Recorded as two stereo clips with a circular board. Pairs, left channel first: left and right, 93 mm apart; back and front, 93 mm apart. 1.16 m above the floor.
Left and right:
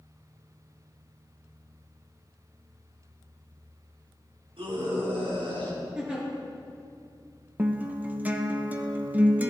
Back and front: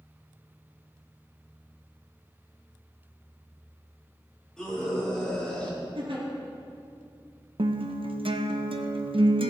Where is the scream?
95° right, 5.5 m; by 5.8 s 100° right, 6.5 m.